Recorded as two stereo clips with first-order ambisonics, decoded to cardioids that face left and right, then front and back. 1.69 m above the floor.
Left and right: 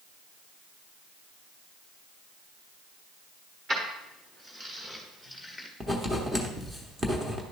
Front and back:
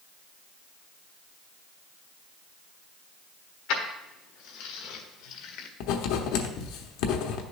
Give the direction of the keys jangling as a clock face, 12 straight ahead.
1 o'clock.